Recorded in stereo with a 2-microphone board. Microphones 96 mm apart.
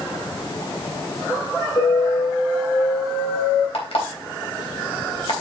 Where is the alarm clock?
80° left, 3.5 m.